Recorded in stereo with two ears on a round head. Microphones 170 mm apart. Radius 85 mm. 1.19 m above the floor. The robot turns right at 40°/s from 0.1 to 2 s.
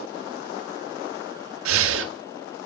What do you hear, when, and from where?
1.6 s breathing: 80° right, 1.4 m; by 2.1 s 65° right (ahead or behind), 1.4 m